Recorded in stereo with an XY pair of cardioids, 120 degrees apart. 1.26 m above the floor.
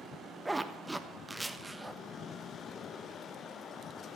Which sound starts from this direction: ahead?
A zipper, at 0.5 s.